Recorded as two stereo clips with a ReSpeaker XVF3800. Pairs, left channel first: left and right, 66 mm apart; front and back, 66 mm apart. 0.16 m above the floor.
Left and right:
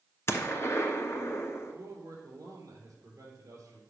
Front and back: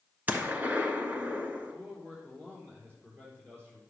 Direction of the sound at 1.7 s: 135° right.